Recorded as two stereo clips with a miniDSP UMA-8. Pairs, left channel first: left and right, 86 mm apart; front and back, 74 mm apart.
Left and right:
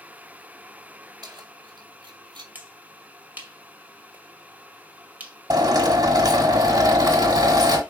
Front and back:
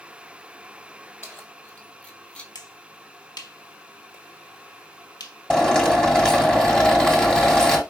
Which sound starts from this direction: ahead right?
Keys jangling, at 1.2 s.